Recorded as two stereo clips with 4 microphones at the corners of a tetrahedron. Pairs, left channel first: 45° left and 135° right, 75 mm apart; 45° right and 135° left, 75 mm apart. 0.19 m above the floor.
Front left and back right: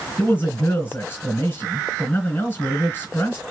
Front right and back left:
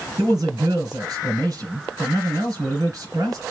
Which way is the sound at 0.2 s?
105° left.